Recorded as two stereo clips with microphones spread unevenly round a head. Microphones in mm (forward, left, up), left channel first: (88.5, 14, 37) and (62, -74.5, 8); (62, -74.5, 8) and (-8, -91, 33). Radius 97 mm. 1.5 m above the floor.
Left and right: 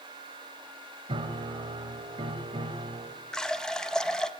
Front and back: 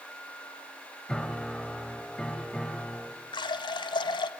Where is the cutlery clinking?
No cutlery clinking in this recording.